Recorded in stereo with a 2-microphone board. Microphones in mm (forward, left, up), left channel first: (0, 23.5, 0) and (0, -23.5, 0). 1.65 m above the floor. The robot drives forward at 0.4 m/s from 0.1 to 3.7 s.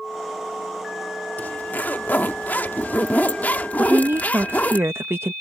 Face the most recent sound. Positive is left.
turn(degrees=-65)  # may be behind; listen again after turning